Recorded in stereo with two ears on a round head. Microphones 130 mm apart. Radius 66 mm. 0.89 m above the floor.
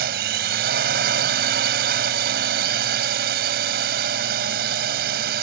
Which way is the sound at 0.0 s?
80° right.